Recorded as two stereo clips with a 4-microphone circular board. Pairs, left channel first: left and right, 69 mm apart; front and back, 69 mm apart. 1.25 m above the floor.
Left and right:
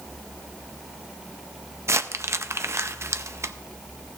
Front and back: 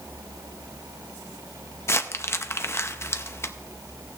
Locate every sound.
1.9 s crumpling: 45° right, 0.6 m